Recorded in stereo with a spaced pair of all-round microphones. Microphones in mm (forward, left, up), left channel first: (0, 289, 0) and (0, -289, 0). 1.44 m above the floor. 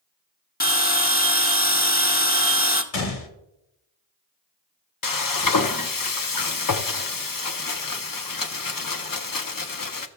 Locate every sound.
0.6 s a bell: 15° left (ahead or behind), 0.7 m
2.9 s a gunshot: 75° left (ahead or behind), 1.0 m
5.0 s frying: 40° left (ahead or behind), 0.5 m